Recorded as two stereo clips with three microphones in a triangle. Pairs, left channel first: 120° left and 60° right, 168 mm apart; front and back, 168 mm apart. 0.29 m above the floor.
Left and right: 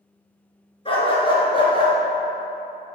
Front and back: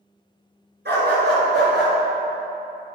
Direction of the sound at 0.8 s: Straight behind.